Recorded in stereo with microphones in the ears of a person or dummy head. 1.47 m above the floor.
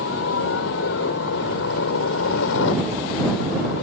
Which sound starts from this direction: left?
A helicopter, at 0.0 s.